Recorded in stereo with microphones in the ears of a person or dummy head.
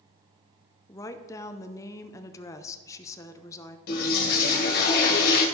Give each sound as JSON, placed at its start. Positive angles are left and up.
{"t": 0.9, "sound": "a woman speaking", "side_deg": 20, "distance_m": 0.7}
{"t": 3.9, "sound": "a toilet flushing", "side_deg": 55, "distance_m": 2.0}